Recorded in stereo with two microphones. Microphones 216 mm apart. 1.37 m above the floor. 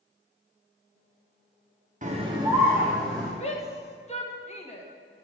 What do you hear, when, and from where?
2.0 s a scream: 35° right (ahead or behind), 0.7 m; by 3.3 s centre (ahead or behind), 1.4 m
3.4 s a shout: 30° left (ahead or behind), 1.4 m